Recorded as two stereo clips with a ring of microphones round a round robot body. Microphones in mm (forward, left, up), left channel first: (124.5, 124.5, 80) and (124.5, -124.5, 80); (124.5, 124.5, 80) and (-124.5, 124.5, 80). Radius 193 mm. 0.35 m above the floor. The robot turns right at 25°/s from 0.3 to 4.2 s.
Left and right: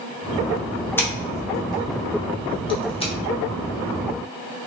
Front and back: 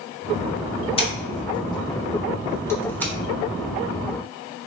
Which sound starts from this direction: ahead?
Scissors, at 1.0 s.